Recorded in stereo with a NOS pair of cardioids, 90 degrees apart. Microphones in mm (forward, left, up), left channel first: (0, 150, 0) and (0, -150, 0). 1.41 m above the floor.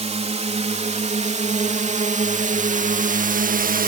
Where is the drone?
20° right; by 3.9 s 30° right.